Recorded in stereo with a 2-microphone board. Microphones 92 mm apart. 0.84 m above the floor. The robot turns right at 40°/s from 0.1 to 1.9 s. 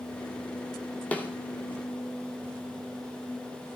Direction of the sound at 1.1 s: 15° left (ahead or behind).